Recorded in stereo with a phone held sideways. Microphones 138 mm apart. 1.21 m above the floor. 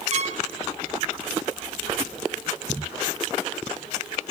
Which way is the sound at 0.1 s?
50° right (ahead or behind).